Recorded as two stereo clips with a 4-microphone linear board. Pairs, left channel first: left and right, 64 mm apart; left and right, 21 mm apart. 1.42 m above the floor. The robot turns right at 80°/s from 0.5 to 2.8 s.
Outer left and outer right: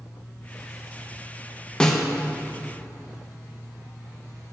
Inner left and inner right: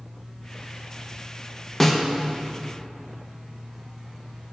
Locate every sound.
1.8 s a snare drum: 15° left (ahead or behind), 0.6 m; by 2.0 s centre (ahead or behind), 0.6 m